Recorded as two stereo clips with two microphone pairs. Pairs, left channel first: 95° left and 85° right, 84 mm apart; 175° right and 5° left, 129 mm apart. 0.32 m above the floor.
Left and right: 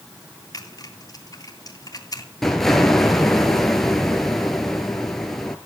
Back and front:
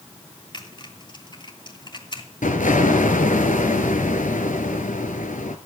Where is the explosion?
Straight behind, 2.0 m.